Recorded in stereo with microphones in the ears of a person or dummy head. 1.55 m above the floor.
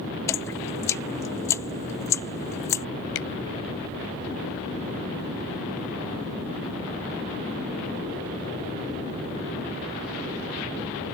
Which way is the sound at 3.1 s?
75° left (ahead or behind).